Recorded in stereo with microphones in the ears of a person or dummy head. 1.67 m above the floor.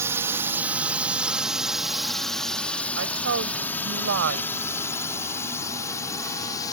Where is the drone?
15° right (ahead or behind); by 6.7 s 20° left (ahead or behind).